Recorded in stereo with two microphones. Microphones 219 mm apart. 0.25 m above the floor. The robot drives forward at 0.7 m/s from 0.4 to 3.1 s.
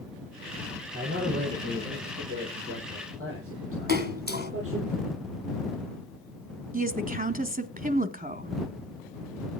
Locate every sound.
0.9 s a man speaking: 75° right (ahead or behind), 8.5 m; by 4.9 s 80° right, 8.5 m
3.9 s a splash: 45° right (ahead or behind), 2 m
6.7 s a woman speaking: 40° right (ahead or behind), 1.6 m